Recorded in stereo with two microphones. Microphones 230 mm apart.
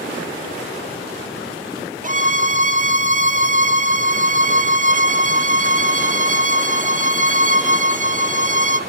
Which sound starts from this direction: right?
A violin, at 2.0 s.